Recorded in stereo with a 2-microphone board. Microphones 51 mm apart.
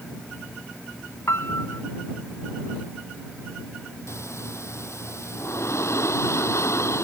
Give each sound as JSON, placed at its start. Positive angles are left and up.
{"t": 1.3, "sound": "a piano", "side_deg": 60}
{"t": 4.1, "sound": "breathing", "side_deg": 65}